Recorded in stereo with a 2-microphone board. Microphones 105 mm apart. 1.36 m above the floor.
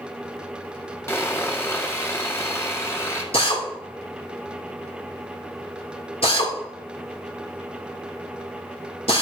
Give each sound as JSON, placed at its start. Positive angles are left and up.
{"t": 1.1, "sound": "sawing", "side_deg": 25, "distance_m": 1.7}
{"t": 3.3, "sound": "a drill", "side_deg": 75, "distance_m": 2.5}